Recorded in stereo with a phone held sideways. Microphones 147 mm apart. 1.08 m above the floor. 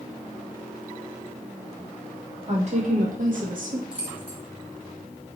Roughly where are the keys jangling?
Centre.